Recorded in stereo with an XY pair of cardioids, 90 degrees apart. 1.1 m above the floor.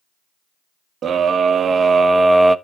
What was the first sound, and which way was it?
A scream, 65° right.